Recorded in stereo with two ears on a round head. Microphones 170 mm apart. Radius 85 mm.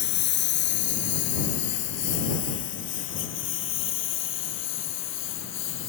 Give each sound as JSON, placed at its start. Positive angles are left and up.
{"t": 0.0, "sound": "a lawn mower", "side_deg": 60}